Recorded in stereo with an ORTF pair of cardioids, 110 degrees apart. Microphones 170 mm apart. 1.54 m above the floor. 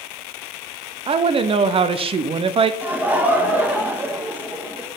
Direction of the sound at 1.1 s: 35° right.